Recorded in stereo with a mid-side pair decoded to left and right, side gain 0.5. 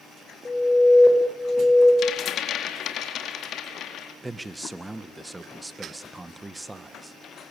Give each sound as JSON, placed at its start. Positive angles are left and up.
{"t": 0.5, "sound": "an alarm", "azimuth_deg": 20, "distance_m": 9.5}
{"t": 2.0, "sound": "a rattle", "azimuth_deg": 60, "distance_m": 4.0}
{"t": 4.2, "sound": "a man speaking", "azimuth_deg": -15, "distance_m": 1.9}